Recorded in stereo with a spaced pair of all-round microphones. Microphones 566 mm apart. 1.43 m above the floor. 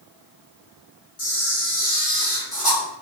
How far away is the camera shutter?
About 1.1 m.